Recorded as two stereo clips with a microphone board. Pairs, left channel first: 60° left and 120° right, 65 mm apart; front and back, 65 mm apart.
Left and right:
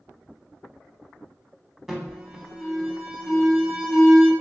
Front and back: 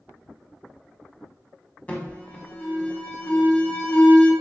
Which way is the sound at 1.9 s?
40° right.